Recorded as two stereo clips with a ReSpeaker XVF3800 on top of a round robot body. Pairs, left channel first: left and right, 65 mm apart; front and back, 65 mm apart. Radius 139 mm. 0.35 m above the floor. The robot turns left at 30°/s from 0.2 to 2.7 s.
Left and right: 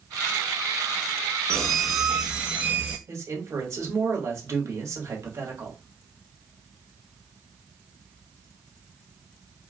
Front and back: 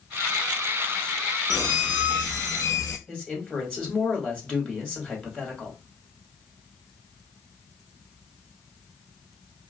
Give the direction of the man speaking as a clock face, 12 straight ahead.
2 o'clock.